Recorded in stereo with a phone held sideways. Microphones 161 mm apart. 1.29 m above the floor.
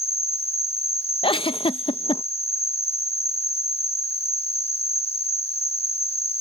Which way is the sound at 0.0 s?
40° left (ahead or behind).